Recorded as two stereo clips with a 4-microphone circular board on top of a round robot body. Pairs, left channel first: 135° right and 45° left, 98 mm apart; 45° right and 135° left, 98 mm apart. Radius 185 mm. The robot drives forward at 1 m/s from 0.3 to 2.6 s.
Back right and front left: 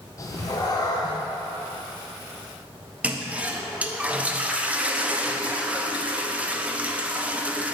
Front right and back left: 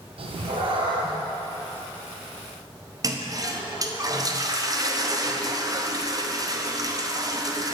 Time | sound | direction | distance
0.2 | a cat meowing | 165° left | 0.6 m
3.0 | a toilet flushing | 115° left | 1.0 m